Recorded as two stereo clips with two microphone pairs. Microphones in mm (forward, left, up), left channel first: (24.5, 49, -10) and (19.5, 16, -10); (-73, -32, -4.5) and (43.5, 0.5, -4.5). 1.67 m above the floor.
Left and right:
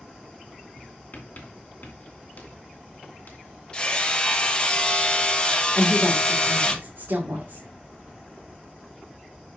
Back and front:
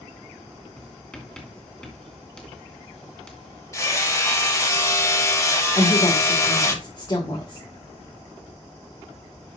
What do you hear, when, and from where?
0.8 s writing: 115° left, 2.5 m
3.7 s hammering: 135° left, 1.3 m
5.8 s a woman speaking: 110° right, 2 m